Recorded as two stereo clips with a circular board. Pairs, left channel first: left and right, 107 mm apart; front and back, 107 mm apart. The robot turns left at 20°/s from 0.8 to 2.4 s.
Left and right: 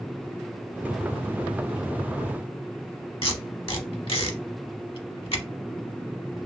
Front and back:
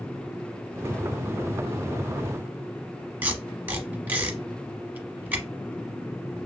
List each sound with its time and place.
3.2 s tape being pulled: 110° left, 0.8 m